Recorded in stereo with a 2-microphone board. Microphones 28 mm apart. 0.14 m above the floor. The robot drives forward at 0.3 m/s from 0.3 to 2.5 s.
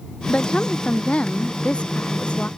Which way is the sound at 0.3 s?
40° left (ahead or behind).